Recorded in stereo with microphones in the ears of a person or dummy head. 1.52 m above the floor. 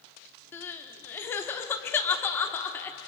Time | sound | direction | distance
0.5 | crying | 15° left (ahead or behind) | 1.2 m